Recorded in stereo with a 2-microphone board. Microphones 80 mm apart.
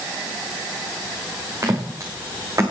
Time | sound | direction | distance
1.6 | footsteps | 45° right (ahead or behind) | 4 m